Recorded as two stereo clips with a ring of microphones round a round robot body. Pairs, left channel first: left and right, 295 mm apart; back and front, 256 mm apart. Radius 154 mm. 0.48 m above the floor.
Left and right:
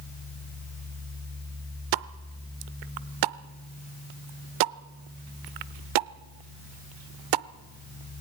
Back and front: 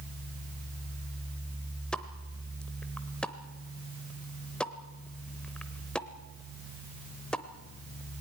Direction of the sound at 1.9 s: 95° right.